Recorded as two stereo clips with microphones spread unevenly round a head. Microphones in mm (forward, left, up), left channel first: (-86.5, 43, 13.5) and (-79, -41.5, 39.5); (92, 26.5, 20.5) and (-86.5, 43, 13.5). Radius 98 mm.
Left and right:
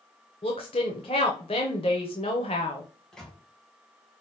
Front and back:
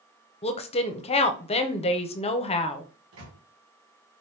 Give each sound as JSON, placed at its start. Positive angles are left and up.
{"t": 0.4, "sound": "a woman speaking", "azimuth_deg": 40, "distance_m": 0.7}
{"t": 3.1, "sound": "a microwave", "azimuth_deg": -175, "distance_m": 1.7}